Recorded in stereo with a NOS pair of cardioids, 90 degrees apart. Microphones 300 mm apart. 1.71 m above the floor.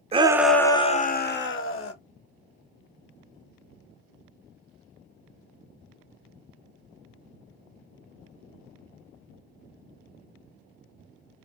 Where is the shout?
20° right, 0.6 m; by 1.9 s 50° left, 1.0 m.